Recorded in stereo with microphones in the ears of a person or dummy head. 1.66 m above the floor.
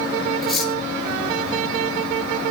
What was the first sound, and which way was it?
Cutlery clinking, centre (ahead or behind).